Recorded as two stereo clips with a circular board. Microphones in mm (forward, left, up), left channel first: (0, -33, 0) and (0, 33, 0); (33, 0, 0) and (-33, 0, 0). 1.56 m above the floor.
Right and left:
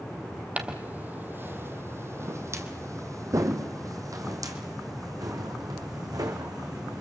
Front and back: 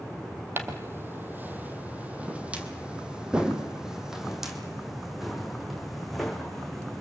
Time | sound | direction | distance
0.6 | footsteps | 150° left | 2 m